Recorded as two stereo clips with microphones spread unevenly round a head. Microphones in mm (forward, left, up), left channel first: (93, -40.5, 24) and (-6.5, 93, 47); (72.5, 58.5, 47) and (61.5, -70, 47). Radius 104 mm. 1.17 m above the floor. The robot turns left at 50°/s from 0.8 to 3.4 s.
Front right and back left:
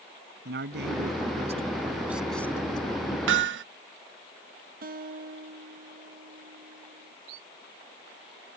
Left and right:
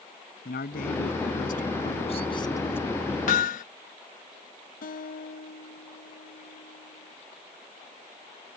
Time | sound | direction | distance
0.5 | a man speaking | 110° left | ?
3.3 | hammering | 125° left | ?
4.8 | a guitar | 90° left | ?